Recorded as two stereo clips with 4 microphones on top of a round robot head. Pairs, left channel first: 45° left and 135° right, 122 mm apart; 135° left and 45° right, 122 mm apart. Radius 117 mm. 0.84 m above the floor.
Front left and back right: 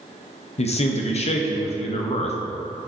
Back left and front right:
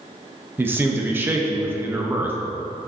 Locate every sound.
0.6 s a man speaking: 25° left, 0.8 m